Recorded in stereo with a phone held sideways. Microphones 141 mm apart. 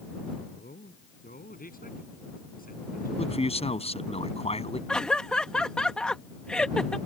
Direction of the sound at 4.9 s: 5° left (ahead or behind).